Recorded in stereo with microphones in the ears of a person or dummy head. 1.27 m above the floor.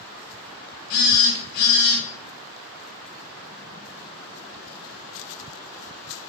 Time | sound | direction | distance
0.9 | a phone buzzing | 55° left (ahead or behind) | 0.9 m